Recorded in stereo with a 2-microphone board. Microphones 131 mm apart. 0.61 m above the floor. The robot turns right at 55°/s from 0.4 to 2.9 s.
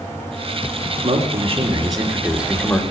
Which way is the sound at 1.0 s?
85° right.